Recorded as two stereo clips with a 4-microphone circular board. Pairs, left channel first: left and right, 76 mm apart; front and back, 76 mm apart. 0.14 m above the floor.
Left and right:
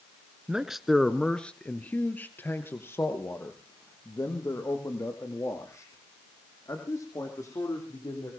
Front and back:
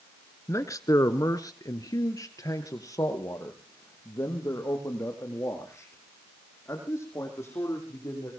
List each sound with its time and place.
0.5 s a man speaking: 15° right, 1.3 m; by 8.3 s 50° left, 6.5 m